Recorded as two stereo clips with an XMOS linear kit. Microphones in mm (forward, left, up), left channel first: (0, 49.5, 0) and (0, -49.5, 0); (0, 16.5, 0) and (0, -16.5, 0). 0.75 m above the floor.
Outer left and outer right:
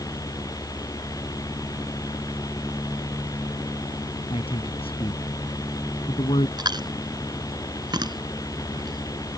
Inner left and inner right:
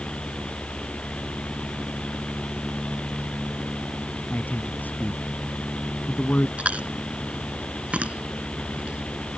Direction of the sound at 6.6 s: 50° right (ahead or behind).